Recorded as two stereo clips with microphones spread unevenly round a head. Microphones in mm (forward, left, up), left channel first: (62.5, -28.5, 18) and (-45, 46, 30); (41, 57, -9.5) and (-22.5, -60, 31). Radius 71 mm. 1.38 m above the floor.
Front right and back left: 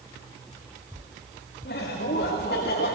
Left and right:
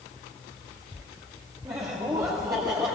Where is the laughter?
55° right, 2 m.